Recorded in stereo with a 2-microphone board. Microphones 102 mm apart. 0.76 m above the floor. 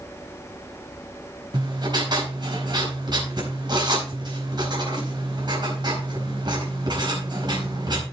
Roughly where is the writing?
Right.